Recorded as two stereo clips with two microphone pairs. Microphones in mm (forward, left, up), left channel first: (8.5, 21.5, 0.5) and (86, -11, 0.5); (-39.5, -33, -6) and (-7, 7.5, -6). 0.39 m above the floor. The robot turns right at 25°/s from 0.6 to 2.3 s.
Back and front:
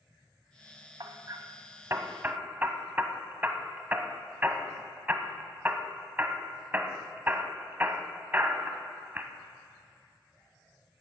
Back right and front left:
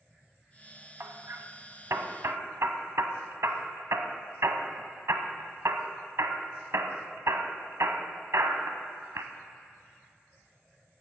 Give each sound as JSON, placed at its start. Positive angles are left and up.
{"t": 1.0, "sound": "hammering", "azimuth_deg": 10, "distance_m": 0.9}